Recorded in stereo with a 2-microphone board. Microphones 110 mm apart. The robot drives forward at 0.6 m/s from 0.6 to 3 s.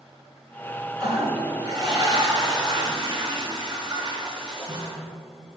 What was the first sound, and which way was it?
A toilet flushing, 35° right (ahead or behind).